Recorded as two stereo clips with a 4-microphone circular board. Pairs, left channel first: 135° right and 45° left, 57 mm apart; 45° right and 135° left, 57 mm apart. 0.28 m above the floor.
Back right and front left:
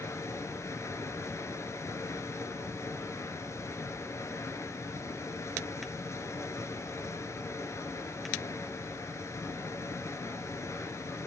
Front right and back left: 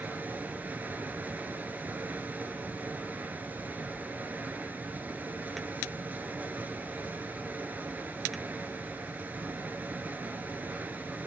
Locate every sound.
0.0 s running water: 170° right, 1.1 m